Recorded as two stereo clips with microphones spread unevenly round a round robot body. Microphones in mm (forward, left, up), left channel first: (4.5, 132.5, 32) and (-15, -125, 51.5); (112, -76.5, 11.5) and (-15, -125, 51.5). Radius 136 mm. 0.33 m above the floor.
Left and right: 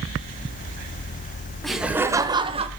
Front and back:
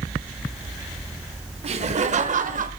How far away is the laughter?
About 1.2 m.